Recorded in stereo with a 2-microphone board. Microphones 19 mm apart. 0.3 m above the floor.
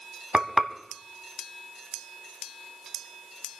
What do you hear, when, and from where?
0.3 s frying: 40° right (ahead or behind), 1.3 m